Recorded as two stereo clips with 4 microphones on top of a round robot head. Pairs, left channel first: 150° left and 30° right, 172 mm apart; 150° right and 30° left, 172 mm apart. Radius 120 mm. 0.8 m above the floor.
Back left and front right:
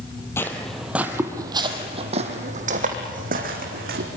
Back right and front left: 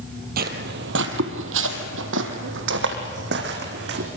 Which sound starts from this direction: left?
Footsteps, at 0.4 s.